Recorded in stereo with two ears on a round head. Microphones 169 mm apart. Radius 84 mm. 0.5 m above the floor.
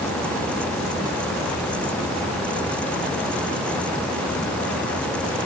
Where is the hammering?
No hammering in this recording.